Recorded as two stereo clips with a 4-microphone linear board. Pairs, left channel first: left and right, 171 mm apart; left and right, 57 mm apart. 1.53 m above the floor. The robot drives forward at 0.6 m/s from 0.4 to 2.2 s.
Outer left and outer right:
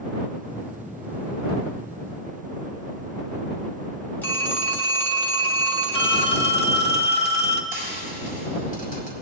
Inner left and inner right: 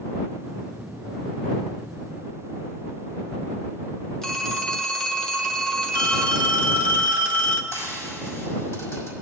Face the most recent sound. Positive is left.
turn(degrees=55)  # may be behind; listen again after turning